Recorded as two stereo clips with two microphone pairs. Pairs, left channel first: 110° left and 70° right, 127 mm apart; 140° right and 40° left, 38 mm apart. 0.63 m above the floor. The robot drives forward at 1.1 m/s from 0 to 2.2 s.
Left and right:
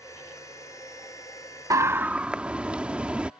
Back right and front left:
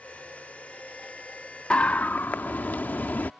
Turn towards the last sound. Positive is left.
turn(degrees=-145)